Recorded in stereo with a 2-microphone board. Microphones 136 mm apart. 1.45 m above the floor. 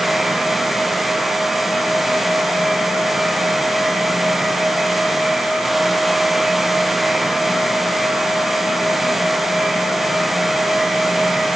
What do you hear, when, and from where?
Only background noise.